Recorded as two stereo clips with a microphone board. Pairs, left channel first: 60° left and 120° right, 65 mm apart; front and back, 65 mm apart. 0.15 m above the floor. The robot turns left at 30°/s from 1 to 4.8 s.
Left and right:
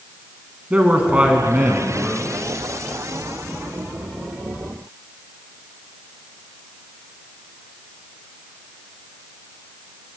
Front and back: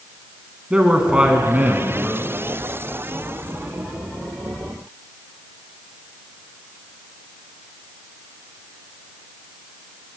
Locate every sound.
0.7 s a man speaking: 135° right, 1.1 m; by 2.3 s 175° right, 1.1 m